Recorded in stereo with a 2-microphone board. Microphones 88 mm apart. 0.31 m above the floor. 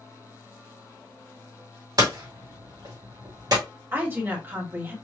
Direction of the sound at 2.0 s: 50° right (ahead or behind).